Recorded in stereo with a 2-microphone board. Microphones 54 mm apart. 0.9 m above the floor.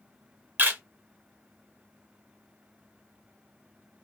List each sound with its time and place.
0.6 s a camera shutter: 35° right (ahead or behind), 1.2 m